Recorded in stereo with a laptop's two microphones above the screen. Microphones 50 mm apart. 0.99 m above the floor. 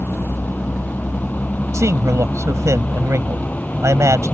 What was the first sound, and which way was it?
A vehicle, 35° left (ahead or behind).